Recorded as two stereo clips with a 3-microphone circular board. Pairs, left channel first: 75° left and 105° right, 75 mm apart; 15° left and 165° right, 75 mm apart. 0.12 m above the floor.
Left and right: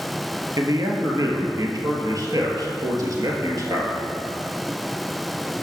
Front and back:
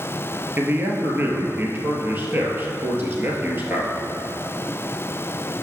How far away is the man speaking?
About 1.9 m.